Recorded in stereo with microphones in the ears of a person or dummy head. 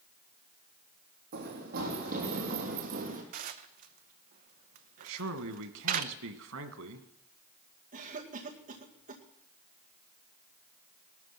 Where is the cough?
50° right (ahead or behind), 2 m.